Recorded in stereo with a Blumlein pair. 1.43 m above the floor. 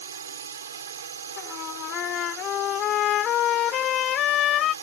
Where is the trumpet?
30° left.